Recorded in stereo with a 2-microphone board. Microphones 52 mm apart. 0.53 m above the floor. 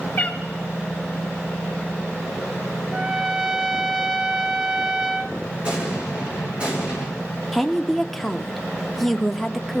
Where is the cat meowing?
35° left (ahead or behind), 1.3 m.